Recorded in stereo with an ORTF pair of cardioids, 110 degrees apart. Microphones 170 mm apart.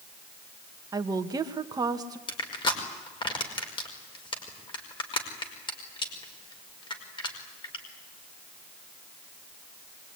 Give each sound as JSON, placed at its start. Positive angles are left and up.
{"t": 0.9, "sound": "a woman speaking", "azimuth_deg": -25, "distance_m": 2.0}
{"t": 2.3, "sound": "crushing", "azimuth_deg": 30, "distance_m": 5.5}